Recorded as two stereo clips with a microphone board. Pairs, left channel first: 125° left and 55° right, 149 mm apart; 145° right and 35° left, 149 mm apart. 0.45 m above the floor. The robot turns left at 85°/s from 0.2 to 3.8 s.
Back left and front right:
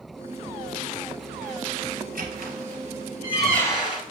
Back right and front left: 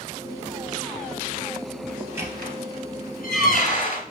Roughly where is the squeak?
Ahead right.